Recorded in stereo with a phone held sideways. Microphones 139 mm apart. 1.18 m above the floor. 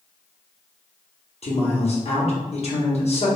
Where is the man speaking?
50° left (ahead or behind), 0.9 m.